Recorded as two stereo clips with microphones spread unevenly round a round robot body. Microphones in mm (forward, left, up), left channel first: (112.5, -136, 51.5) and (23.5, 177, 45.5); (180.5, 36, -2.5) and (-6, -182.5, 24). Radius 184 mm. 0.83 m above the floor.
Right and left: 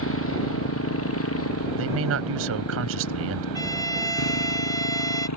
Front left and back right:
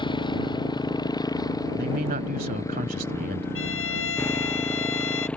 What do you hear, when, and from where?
0.0 s a motorcycle: 25° right; by 5.4 s 35° right
1.8 s a man speaking: 160° left
3.5 s a violin: 5° left